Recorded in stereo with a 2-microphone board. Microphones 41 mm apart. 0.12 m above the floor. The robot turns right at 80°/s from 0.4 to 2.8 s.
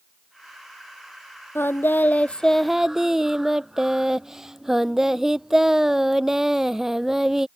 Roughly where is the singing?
Left.